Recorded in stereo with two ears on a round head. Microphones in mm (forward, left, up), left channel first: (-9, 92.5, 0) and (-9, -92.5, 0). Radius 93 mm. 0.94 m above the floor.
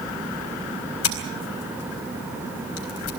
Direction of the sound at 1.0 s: 80° left.